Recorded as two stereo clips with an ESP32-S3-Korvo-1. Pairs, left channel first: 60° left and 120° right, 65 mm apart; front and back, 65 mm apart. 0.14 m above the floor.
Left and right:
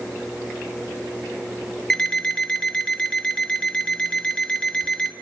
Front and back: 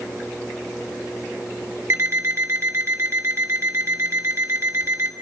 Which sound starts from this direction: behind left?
An alarm clock, at 1.9 s.